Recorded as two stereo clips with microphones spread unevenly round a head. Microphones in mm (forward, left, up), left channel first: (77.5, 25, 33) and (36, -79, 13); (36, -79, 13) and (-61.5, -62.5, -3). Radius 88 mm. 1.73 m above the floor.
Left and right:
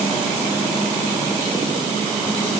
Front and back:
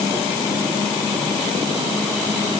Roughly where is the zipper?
No zipper in this recording.